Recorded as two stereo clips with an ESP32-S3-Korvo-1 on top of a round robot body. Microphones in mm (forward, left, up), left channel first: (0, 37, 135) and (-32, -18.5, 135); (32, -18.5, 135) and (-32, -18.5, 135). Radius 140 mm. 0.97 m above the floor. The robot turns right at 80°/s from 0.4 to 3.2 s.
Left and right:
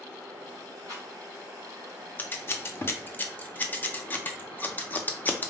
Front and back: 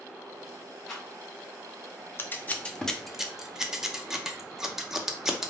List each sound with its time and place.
0.9 s a rattle: 85° right, 1.0 m; by 1.1 s 70° right, 1.0 m
2.2 s scissors: 20° left, 0.9 m; by 5.5 s 100° left, 0.9 m